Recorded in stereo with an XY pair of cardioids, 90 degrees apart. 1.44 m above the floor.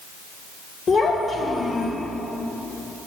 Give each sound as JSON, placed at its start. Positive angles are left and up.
{"t": 0.9, "sound": "a child speaking", "azimuth_deg": 60, "distance_m": 1.6}